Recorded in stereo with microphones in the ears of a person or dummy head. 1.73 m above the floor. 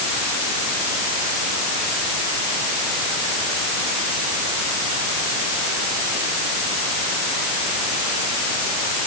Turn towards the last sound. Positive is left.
No sound to turn to.